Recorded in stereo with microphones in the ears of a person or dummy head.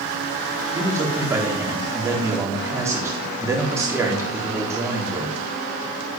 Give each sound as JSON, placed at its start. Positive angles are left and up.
{"t": 0.7, "sound": "a man speaking", "side_deg": -10, "distance_m": 3.5}